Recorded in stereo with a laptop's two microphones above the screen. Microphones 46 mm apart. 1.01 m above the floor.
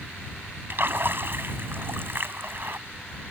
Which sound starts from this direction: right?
A splash, at 0.7 s.